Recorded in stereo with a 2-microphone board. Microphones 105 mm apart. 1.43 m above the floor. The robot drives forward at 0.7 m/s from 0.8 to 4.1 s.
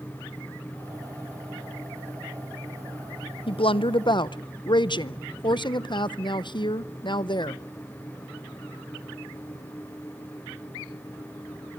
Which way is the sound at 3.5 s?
60° left (ahead or behind).